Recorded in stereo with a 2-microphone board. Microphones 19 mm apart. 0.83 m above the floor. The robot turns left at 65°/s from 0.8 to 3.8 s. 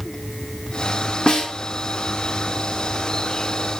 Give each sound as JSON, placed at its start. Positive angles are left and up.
{"t": 1.3, "sound": "a snare drum", "side_deg": 65, "distance_m": 1.0}